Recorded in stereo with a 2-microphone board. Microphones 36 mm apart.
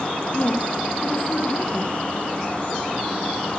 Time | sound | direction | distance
0.3 | a woman speaking | 35° left (ahead or behind) | 3 m